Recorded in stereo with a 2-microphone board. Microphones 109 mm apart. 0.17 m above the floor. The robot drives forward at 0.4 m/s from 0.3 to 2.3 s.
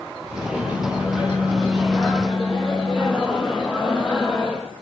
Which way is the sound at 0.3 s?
10° right (ahead or behind).